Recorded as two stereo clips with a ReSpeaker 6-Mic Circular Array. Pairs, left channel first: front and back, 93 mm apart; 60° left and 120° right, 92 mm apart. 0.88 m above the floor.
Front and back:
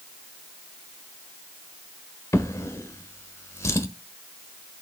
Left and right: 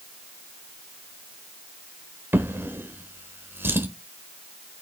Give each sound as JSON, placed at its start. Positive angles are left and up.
{"t": 2.3, "sound": "a drawer", "azimuth_deg": -55, "distance_m": 1.3}